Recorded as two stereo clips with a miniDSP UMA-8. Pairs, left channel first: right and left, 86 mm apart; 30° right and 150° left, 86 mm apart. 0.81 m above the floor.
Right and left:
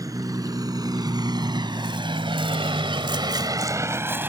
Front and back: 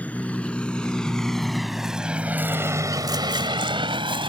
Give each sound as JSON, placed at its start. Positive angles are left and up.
{"t": 0.0, "sound": "a vehicle", "azimuth_deg": 45}